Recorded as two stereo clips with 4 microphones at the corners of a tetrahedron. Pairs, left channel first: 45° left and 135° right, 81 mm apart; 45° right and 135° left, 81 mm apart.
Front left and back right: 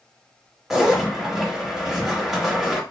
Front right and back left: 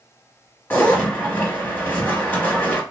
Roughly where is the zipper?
Ahead right.